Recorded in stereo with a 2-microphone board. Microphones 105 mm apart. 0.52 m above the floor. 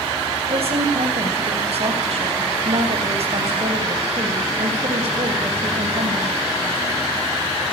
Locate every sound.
0.5 s a woman speaking: 65° right (ahead or behind), 3.5 m